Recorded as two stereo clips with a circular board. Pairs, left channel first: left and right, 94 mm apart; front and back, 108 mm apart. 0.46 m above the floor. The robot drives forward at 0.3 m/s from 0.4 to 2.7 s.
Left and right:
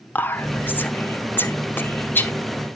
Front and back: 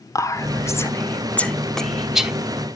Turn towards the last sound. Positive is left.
turn(degrees=125)